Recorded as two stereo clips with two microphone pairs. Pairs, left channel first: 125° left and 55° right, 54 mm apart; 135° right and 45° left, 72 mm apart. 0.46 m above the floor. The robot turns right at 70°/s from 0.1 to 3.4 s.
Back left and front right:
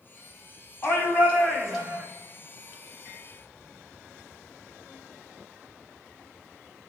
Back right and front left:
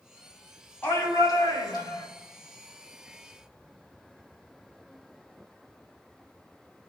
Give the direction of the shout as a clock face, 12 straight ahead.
7 o'clock.